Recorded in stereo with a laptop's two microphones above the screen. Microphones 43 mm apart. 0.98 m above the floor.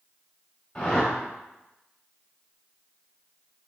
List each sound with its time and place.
0.8 s a whoosh: 25° left (ahead or behind), 1.2 m